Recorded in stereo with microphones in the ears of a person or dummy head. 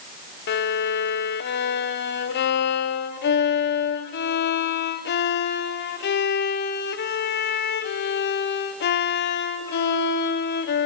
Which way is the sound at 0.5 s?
50° left (ahead or behind).